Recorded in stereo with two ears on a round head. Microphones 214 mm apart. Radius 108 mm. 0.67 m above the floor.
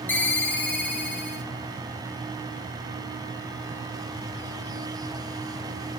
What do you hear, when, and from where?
0.1 s a ringtone: 5° left (ahead or behind), 1.2 m